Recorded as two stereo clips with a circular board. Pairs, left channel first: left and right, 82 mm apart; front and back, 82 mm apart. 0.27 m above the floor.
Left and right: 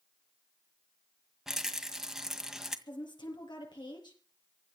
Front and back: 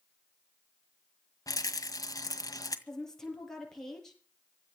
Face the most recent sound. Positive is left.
turn(degrees=85)